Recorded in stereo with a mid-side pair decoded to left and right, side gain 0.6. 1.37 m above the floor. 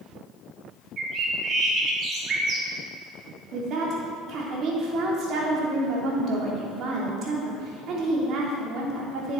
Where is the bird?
45° right, 2.5 m.